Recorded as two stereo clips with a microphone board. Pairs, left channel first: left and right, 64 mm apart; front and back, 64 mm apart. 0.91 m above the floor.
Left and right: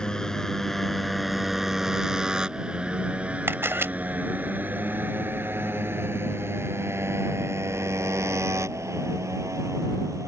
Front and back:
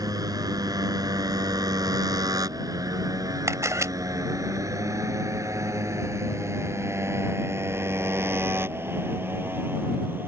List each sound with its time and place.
0.0 s a motorcycle: 170° left; by 10.3 s 125° right
3.5 s a camera shutter: 140° right